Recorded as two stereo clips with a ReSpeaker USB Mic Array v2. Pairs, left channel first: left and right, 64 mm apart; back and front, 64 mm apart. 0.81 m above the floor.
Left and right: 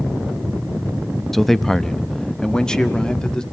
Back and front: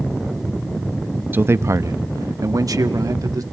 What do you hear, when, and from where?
1.3 s a man speaking: 5° left, 0.5 m; by 3.4 s 15° left, 1.7 m